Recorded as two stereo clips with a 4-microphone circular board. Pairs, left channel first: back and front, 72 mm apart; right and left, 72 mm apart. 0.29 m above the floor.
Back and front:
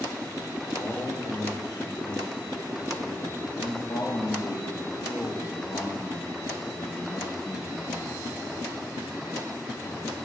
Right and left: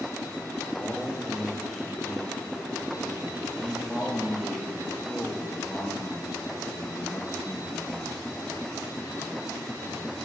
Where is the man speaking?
Straight behind, 6.5 m; by 8.2 s 140° right, 3 m.